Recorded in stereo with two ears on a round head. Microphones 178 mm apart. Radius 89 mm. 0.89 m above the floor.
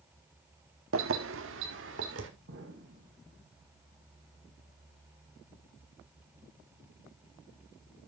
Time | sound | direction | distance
0.9 | keys jangling | 75° right (ahead or behind) | 1.2 m
2.5 | an explosion | 70° right (ahead or behind) | 3.5 m